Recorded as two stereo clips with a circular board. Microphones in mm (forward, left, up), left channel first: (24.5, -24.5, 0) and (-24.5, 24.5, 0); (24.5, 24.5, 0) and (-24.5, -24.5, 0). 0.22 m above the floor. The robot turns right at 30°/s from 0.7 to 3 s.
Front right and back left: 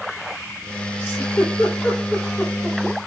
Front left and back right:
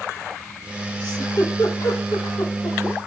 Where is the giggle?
5° left, 9 m; by 2.8 s 60° left, 9 m.